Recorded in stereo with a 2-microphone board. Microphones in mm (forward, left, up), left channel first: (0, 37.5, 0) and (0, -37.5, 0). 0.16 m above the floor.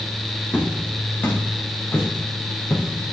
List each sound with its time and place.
0.5 s footsteps: 20° left (ahead or behind), 4 m; by 3.1 s 40° left (ahead or behind), 4 m